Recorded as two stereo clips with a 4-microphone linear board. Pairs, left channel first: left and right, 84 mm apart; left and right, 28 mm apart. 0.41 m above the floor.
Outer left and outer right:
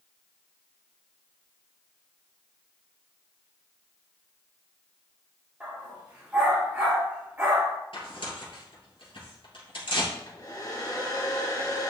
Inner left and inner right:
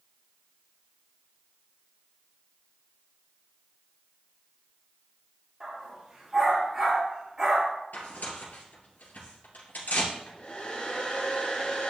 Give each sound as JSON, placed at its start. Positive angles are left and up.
{"t": 5.6, "sound": "a dog barking", "side_deg": -20, "distance_m": 4.0}
{"t": 7.9, "sound": "tearing paper", "side_deg": 85, "distance_m": 3.0}
{"t": 10.1, "sound": "a hair dryer", "side_deg": 45, "distance_m": 2.5}